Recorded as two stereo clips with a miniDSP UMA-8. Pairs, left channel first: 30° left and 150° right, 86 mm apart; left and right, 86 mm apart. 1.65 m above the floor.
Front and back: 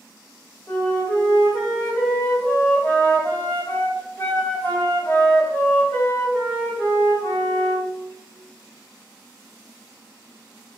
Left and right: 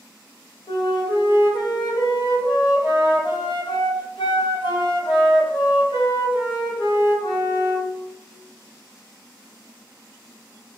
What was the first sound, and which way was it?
A flute, 95° left.